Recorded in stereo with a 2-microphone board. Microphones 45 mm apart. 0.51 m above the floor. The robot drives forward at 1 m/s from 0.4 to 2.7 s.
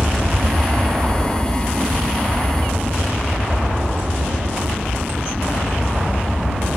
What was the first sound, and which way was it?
An aircraft, 20° right (ahead or behind).